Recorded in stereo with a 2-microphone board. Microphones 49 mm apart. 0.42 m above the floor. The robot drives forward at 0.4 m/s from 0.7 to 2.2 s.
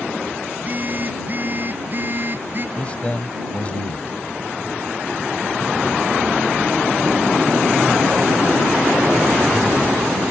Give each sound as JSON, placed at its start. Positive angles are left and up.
{"t": 0.5, "sound": "a phone buzzing", "side_deg": -35}
{"t": 2.8, "sound": "a man speaking", "side_deg": 25}